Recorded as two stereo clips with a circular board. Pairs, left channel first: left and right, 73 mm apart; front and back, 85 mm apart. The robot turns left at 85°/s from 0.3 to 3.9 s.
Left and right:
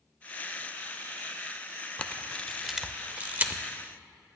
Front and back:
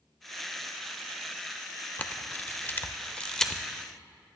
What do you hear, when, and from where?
2.0 s a camera shutter: 50° left, 0.6 m; by 3.6 s 90° right, 0.6 m